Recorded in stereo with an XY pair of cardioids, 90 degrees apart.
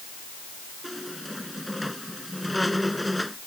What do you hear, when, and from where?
0.8 s a squeak: 5° left